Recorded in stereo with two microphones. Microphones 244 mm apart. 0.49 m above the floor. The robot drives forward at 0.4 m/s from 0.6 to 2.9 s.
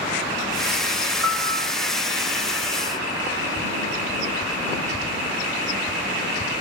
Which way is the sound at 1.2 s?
55° right (ahead or behind).